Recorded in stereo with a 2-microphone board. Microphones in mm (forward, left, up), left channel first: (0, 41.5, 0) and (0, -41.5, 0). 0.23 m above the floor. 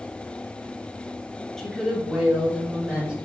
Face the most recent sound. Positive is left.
turn(degrees=-10)  # may be behind; listen again after turning